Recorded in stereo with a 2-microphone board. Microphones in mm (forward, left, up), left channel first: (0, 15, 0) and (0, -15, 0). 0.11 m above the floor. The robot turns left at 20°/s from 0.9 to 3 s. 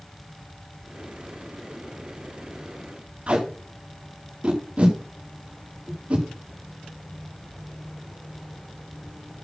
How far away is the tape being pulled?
About 6.5 m.